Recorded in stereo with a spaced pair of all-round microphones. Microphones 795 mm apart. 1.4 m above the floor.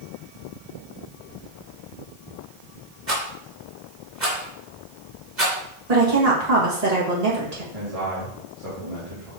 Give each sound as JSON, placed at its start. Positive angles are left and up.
{"t": 3.1, "sound": "a rattle", "side_deg": -65, "distance_m": 3.0}
{"t": 5.9, "sound": "a woman speaking", "side_deg": -55, "distance_m": 1.8}
{"t": 7.7, "sound": "a man speaking", "side_deg": -45, "distance_m": 2.5}